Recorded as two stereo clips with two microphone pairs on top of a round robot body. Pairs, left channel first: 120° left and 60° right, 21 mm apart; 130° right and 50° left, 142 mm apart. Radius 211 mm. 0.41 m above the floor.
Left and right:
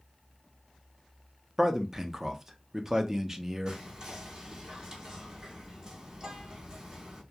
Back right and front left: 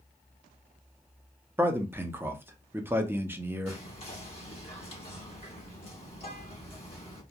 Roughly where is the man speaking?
Ahead.